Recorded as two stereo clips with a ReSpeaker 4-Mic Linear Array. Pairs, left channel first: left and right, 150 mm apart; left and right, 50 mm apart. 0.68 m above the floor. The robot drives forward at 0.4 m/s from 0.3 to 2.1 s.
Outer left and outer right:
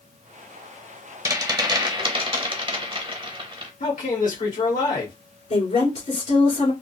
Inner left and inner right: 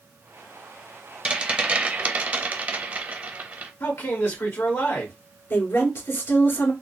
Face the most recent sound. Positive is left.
turn(degrees=60)  # may be behind; listen again after turning